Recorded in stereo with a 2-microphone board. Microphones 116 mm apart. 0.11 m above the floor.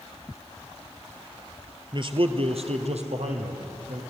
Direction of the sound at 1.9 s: 40° right (ahead or behind).